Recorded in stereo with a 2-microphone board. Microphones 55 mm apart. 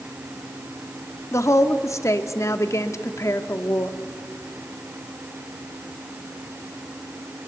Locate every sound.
1.3 s a woman speaking: 60° left (ahead or behind), 1.3 m